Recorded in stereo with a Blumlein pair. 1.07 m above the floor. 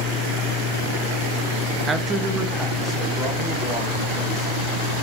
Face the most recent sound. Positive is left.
turn(degrees=0)